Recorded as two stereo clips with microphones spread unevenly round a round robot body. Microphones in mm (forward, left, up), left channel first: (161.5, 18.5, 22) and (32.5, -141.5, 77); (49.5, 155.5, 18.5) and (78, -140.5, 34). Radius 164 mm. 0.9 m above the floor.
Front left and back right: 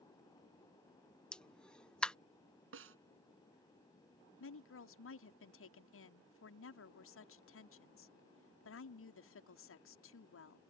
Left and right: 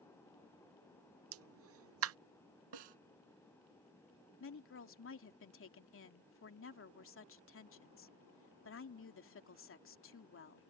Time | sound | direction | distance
1.3 | a pop | 35° right | ?
2.7 | a snare drum | 110° right | ?
4.4 | a woman speaking | 45° left | ?